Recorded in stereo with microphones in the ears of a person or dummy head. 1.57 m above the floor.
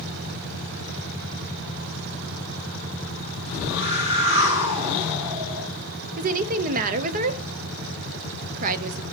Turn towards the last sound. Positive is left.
turn(degrees=-45)  # may be behind; listen again after turning